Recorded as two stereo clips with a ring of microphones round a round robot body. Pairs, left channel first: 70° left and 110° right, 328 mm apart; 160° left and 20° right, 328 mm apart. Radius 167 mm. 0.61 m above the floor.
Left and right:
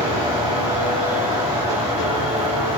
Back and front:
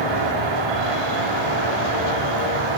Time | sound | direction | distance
0.0 | an insect | 40° right | 2.5 m